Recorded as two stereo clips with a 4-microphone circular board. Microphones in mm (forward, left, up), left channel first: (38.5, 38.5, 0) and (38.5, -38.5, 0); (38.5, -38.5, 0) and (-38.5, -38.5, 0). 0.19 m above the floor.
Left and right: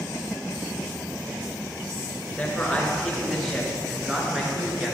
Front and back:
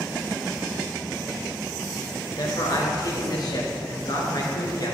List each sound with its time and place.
2.4 s a man speaking: 15° left, 2.5 m; by 4.9 s 20° right, 2.5 m